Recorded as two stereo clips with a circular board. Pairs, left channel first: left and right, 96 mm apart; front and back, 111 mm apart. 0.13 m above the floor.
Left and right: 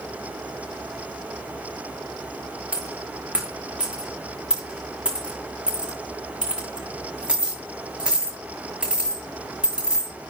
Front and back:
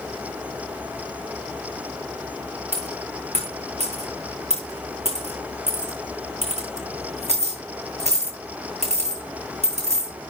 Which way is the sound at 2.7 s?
170° right.